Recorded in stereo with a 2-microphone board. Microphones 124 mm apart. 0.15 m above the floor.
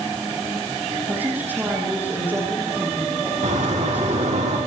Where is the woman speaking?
15° right (ahead or behind), 6.5 m.